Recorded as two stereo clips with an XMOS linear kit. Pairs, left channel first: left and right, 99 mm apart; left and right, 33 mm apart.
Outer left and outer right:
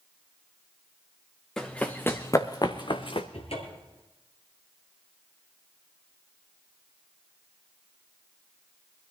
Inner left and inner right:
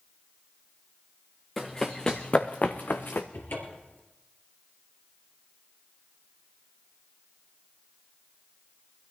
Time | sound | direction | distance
1.6 | running footsteps | 5° left (ahead or behind) | 1.4 m
3.3 | a cupboard door | 75° left (ahead or behind) | 3 m